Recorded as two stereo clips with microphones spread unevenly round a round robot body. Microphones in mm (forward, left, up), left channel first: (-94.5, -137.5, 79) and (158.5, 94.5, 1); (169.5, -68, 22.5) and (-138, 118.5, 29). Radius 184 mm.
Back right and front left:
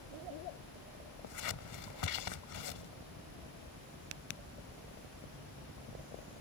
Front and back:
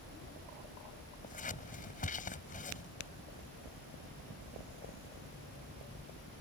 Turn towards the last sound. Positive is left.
turn(degrees=-100)